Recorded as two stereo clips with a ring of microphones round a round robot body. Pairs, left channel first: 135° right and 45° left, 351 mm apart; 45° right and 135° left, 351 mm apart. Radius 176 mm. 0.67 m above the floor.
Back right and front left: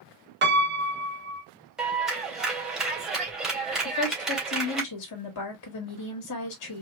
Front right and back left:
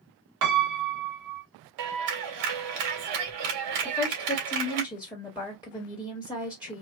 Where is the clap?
135° left, 2 m.